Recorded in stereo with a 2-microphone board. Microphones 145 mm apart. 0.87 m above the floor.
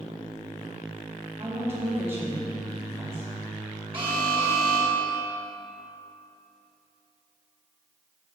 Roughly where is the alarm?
Right.